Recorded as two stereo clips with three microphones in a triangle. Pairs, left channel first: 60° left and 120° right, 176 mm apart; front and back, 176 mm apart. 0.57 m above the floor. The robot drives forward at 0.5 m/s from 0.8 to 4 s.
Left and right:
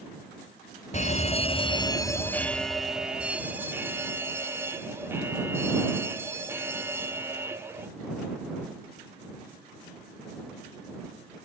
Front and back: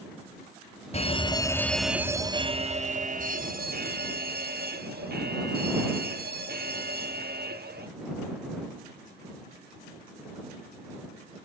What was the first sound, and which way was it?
An alarm, 35° left.